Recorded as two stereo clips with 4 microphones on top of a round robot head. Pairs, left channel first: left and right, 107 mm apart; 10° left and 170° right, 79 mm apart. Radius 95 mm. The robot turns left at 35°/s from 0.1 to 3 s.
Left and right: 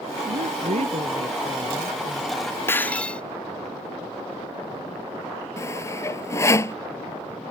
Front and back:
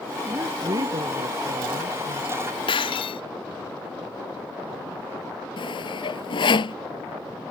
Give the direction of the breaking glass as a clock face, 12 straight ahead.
11 o'clock.